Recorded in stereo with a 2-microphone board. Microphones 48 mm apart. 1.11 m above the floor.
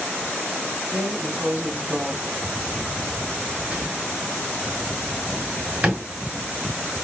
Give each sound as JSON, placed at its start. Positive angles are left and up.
{"t": 0.9, "sound": "a drawer", "side_deg": -30, "distance_m": 1.7}